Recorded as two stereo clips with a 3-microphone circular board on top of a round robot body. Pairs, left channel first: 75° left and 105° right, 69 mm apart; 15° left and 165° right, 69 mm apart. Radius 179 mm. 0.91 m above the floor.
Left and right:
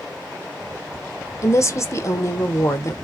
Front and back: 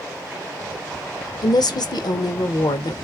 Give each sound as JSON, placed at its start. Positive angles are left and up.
{"t": 1.4, "sound": "a woman speaking", "azimuth_deg": 25, "distance_m": 0.7}